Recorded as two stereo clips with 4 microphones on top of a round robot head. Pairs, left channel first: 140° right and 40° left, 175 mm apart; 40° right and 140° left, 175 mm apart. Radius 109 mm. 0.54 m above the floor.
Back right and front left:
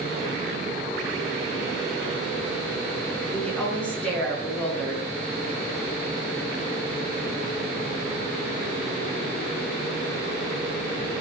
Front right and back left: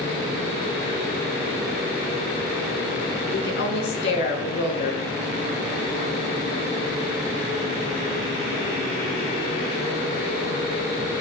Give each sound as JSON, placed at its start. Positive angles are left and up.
{"t": 3.3, "sound": "a woman speaking", "azimuth_deg": -60, "distance_m": 6.0}